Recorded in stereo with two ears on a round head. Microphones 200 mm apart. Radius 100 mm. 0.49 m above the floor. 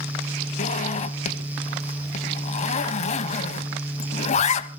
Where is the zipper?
30° left (ahead or behind), 0.8 m.